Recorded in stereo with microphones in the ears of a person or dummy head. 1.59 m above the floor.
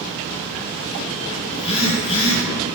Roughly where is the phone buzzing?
Left.